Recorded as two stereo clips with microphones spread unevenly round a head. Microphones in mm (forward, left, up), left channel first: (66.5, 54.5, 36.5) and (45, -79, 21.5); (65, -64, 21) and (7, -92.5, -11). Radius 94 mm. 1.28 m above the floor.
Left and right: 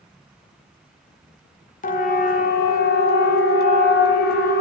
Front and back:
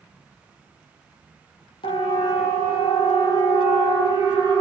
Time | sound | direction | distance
1.8 | a siren | 55° left | 2.5 m